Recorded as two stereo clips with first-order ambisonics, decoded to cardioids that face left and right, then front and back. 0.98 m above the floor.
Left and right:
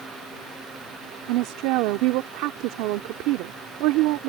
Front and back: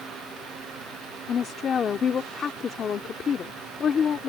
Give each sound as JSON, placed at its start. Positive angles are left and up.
{"t": 1.3, "sound": "a woman speaking", "azimuth_deg": -65}